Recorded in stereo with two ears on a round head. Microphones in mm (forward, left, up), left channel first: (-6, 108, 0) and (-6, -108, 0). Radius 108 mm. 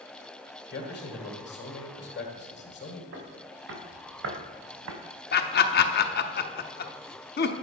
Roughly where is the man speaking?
Left.